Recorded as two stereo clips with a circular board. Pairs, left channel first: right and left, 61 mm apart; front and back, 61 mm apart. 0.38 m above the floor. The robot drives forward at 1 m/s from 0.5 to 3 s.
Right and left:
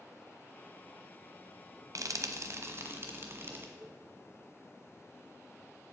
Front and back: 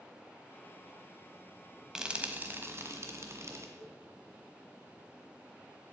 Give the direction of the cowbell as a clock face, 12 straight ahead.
8 o'clock.